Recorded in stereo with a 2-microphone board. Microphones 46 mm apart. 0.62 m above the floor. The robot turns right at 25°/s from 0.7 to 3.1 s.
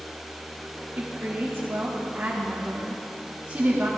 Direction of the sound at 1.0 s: 100° right.